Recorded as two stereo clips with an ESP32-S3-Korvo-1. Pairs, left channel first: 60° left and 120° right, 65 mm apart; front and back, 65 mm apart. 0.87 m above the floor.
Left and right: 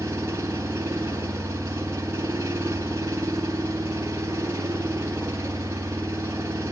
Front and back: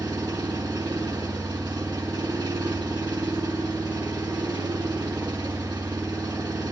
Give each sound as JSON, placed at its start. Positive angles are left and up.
{"t": 0.0, "sound": "an engine running", "azimuth_deg": -170, "distance_m": 7.0}